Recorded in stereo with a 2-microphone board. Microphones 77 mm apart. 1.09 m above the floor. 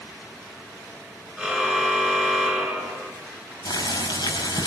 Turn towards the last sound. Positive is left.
turn(degrees=75)  # may be behind; listen again after turning